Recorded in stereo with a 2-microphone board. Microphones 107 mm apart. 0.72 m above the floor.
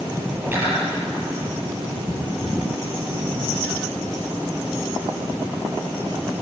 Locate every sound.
0.4 s cutlery clinking: 20° right (ahead or behind), 9 m